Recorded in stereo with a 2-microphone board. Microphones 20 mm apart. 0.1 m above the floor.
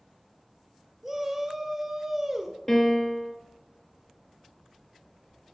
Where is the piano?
15° left (ahead or behind), 1.6 m.